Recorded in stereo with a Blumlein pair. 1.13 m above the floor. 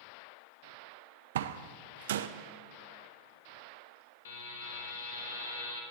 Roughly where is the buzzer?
Ahead left.